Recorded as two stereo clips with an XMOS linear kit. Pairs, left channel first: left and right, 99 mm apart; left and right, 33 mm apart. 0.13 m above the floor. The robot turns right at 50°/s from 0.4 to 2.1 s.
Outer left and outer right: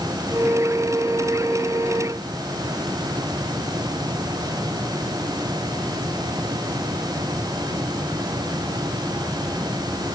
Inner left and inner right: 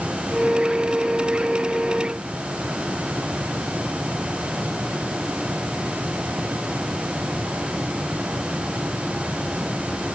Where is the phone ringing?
I don't hear a phone ringing.